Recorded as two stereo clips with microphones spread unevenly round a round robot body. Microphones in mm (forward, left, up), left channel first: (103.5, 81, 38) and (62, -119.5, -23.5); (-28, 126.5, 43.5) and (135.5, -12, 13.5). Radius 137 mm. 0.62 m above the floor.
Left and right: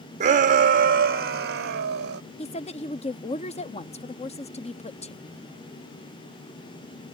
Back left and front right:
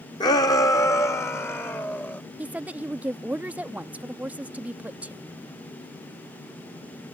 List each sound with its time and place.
0.2 s a shout: 145° right; by 2.2 s 135° right
2.4 s a woman speaking: 15° left